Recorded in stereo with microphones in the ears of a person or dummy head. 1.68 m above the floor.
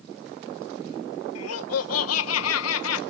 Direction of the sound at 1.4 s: 85° left.